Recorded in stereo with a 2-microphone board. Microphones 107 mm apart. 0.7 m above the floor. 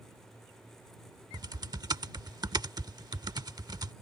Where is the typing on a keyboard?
40° right (ahead or behind).